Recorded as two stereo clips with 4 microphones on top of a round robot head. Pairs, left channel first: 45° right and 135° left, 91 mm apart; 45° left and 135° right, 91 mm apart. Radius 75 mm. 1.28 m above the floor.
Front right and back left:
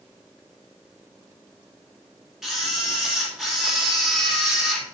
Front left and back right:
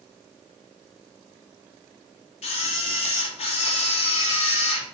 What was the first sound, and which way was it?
A camera shutter, 50° left.